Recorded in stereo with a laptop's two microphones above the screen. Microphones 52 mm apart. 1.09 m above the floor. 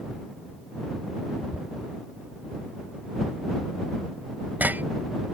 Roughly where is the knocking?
Right.